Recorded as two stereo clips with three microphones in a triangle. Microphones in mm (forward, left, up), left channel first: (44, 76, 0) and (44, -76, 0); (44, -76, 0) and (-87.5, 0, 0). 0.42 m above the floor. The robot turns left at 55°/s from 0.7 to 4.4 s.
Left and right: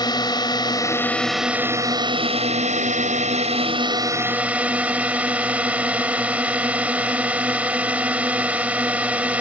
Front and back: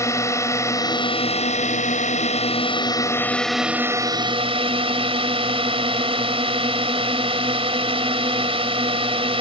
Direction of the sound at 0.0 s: 35° left.